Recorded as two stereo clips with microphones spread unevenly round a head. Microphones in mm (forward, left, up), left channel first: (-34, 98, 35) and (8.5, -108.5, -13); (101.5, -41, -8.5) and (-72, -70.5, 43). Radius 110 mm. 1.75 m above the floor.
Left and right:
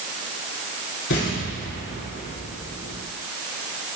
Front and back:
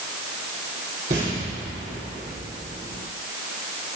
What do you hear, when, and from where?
1.1 s an explosion: 130° left, 4.5 m